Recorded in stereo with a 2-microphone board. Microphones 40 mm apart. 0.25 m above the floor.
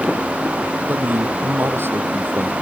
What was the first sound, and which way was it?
A man speaking, 70° right (ahead or behind).